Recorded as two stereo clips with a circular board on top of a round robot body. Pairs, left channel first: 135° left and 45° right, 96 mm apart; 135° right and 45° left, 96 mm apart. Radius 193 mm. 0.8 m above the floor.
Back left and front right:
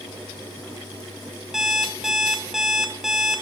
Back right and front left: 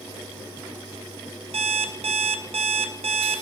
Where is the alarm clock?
40° left, 0.7 m.